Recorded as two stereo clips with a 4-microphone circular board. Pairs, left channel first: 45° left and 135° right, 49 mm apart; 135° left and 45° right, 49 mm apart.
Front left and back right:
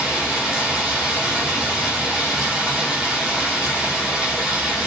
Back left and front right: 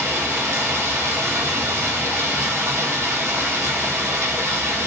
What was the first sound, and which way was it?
Running water, 65° right.